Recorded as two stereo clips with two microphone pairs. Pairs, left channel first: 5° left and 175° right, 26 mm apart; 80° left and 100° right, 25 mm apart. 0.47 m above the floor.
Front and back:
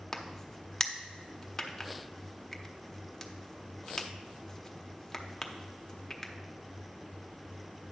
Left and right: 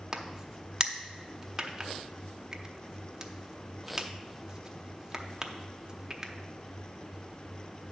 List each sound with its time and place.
0.1 s a crack: 60° right, 0.8 m